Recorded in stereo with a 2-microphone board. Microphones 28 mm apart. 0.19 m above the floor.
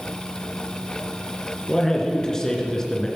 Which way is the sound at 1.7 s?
20° left (ahead or behind).